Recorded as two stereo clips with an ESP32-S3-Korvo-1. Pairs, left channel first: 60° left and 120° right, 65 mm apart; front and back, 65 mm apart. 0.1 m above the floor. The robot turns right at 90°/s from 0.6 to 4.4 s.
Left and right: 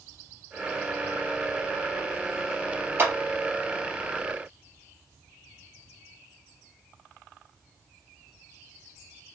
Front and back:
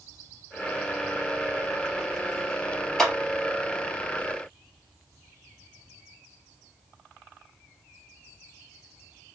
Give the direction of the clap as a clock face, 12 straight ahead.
3 o'clock.